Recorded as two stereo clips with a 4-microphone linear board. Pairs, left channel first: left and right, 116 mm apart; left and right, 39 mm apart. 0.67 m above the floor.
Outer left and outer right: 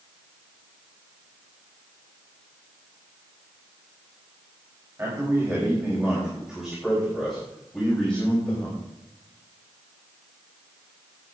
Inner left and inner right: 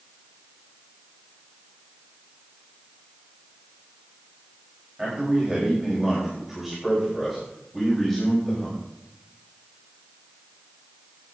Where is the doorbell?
I don't hear a doorbell.